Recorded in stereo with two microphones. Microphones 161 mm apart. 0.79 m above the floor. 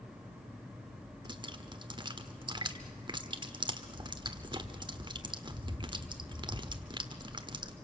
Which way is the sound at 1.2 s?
30° right (ahead or behind).